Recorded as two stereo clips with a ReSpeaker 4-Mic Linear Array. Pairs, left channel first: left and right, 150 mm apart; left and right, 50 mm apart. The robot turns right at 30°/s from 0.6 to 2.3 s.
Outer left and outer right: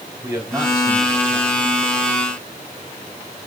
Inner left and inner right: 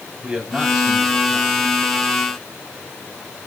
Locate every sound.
0.2 s a man speaking: 20° right, 7 m; by 1.7 s 15° left, 7 m